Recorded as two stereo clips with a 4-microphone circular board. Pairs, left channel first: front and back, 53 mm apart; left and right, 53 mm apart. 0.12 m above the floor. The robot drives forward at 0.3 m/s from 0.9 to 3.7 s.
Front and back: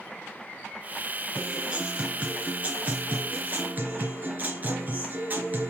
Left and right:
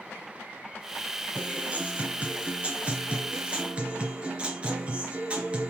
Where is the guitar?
120° right, 1.9 m; by 5.7 s 145° right, 2 m.